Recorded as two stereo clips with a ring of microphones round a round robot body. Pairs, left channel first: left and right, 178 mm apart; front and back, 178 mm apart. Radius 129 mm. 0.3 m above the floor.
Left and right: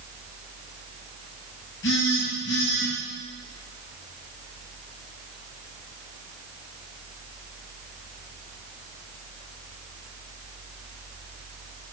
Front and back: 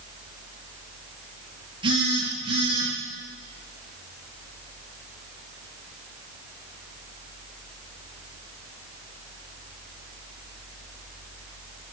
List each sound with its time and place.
1.8 s a phone buzzing: 120° left, 6.5 m